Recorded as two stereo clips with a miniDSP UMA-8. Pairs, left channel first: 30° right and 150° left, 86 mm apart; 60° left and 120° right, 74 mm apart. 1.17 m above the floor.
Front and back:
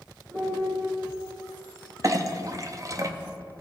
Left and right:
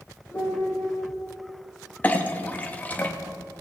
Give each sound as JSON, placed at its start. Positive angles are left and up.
{"t": 0.3, "sound": "a piano", "azimuth_deg": 110, "distance_m": 3.5}
{"t": 2.0, "sound": "a clink", "azimuth_deg": 120, "distance_m": 0.6}